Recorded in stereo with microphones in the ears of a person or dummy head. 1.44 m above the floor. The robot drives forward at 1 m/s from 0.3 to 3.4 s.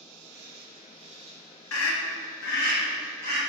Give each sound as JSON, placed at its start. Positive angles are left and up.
{"t": 0.0, "sound": "an insect", "side_deg": -65, "distance_m": 1.0}
{"t": 1.7, "sound": "a scream", "side_deg": 75, "distance_m": 2.0}